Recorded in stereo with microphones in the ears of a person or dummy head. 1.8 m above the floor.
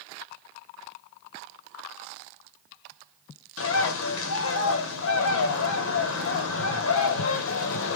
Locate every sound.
3.6 s a bird: 85° left, 0.7 m